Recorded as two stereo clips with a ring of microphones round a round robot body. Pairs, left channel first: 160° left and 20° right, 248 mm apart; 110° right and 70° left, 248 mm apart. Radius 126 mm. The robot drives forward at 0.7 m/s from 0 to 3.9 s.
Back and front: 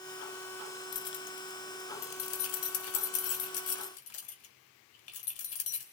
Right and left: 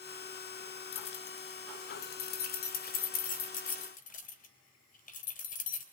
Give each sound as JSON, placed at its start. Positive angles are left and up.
{"t": 0.9, "sound": "keys jangling", "azimuth_deg": -155, "distance_m": 1.1}